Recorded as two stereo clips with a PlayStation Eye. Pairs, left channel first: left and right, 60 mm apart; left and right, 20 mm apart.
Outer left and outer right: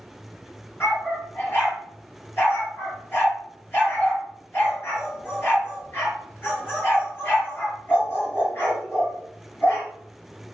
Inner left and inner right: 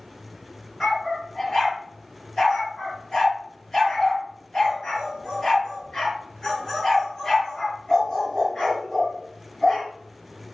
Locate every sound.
0.8 s a dog barking: 30° left (ahead or behind), 4.5 m